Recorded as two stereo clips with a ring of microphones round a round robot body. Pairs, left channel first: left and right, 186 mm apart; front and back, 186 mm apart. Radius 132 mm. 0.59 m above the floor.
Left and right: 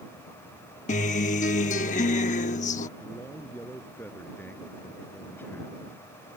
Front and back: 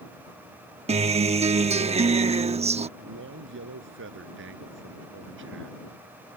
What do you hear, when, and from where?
0.9 s a guitar: 135° left
3.0 s a man speaking: 175° left